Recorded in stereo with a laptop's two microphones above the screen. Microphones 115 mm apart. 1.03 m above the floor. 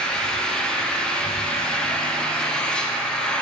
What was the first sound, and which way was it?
An engine running, 5° left (ahead or behind).